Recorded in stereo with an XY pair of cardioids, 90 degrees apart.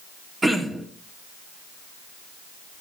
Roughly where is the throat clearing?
Ahead right.